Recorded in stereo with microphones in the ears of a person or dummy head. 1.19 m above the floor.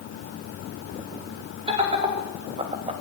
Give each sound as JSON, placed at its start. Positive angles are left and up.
{"t": 1.7, "sound": "laughter", "side_deg": -25, "distance_m": 3.0}